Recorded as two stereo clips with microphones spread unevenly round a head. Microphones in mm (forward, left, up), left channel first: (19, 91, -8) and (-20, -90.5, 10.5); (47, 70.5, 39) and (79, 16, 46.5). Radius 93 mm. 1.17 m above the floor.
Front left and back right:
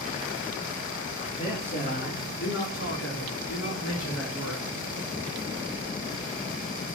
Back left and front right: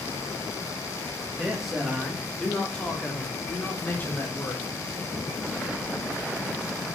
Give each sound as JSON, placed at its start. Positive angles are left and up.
{"t": 1.4, "sound": "a man speaking", "azimuth_deg": 20, "distance_m": 3.0}